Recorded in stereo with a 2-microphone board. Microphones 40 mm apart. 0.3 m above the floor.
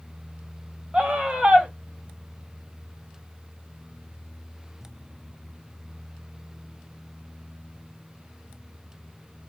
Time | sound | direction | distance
0.9 | a scream | 25° right (ahead or behind) | 1.3 m